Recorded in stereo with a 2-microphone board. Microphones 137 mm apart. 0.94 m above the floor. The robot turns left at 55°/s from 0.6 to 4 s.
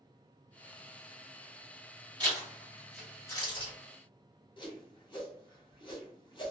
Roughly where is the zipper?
Right.